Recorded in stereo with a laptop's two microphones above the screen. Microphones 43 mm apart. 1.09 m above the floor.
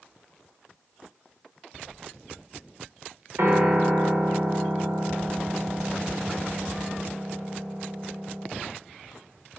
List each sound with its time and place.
3.4 s a piano: 65° right (ahead or behind), 1.9 m